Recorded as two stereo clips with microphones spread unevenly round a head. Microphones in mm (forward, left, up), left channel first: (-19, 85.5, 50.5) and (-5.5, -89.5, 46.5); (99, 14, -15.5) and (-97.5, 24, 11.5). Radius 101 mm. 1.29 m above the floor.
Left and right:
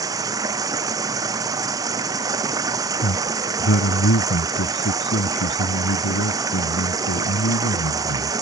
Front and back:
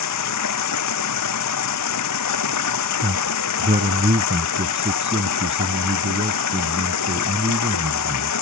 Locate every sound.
0.0 s running water: 15° right
3.0 s a man speaking: 120° left